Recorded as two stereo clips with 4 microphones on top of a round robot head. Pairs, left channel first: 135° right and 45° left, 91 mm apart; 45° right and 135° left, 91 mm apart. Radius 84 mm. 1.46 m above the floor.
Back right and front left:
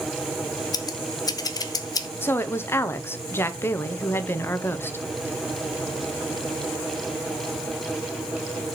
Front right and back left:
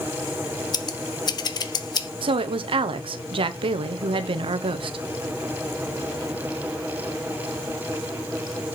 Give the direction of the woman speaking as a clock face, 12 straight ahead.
7 o'clock.